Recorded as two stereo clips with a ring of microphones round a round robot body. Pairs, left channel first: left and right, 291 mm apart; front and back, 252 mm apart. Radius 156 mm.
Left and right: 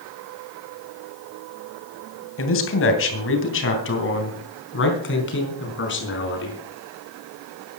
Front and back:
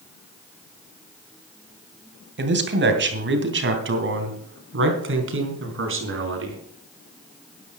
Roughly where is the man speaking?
Behind left.